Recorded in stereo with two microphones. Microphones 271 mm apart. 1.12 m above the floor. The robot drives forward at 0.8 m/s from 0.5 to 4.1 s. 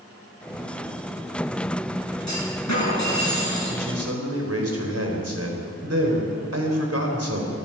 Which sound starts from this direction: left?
A clunk, at 2.3 s.